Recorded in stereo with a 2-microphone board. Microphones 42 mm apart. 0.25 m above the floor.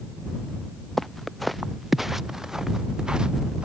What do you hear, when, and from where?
1.0 s footsteps: 5° left (ahead or behind); by 3.6 s 25° right (ahead or behind)